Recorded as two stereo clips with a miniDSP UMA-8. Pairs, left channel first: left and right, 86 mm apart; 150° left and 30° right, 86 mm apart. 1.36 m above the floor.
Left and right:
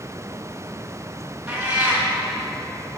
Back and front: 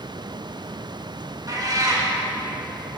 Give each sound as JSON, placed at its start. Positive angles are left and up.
{"t": 1.5, "sound": "a cat meowing", "azimuth_deg": -25, "distance_m": 1.1}